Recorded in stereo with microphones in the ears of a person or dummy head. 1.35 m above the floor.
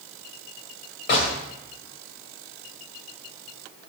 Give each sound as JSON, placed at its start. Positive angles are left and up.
{"t": 1.1, "sound": "a gunshot", "side_deg": 55, "distance_m": 1.6}